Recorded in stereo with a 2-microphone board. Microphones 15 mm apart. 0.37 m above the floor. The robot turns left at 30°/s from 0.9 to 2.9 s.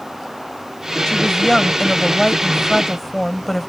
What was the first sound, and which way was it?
A woman speaking, 70° left.